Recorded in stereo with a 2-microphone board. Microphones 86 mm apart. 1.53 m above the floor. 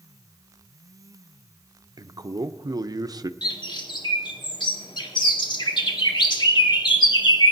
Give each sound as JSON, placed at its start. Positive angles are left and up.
{"t": 2.0, "sound": "a man speaking", "side_deg": -50, "distance_m": 0.5}
{"t": 3.4, "sound": "a bird", "side_deg": 60, "distance_m": 1.3}